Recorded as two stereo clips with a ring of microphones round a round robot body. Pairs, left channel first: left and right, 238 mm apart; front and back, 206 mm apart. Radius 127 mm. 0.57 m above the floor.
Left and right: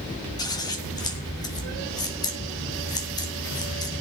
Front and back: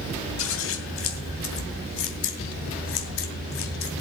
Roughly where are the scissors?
Ahead.